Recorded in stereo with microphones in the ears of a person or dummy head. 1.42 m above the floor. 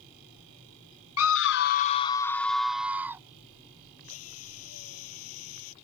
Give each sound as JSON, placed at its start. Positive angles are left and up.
{"t": 1.2, "sound": "a scream", "side_deg": 80}
{"t": 4.0, "sound": "a drill", "side_deg": 80}